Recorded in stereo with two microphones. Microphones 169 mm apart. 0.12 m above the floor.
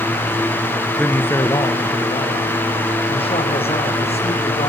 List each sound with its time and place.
1.0 s a man speaking: 5° left (ahead or behind), 1.4 m; by 4.7 s 40° left (ahead or behind), 6 m